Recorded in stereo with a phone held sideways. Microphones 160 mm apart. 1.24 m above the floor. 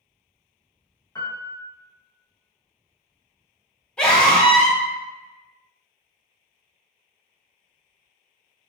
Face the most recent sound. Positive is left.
turn(degrees=5)  # may be behind; listen again after turning